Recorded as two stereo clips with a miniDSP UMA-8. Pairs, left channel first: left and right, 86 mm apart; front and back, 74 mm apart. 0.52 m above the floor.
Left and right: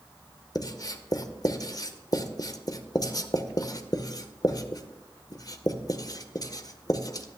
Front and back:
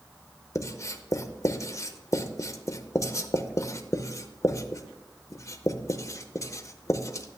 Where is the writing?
45° left, 0.6 m.